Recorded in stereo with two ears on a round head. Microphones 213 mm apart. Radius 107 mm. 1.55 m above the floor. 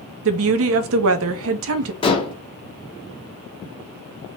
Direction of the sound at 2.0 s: 20° left (ahead or behind).